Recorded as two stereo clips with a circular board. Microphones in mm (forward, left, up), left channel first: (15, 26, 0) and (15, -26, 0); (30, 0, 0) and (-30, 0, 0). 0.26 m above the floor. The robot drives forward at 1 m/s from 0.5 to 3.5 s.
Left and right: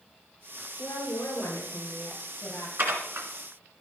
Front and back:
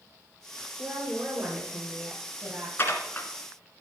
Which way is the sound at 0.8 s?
100° left.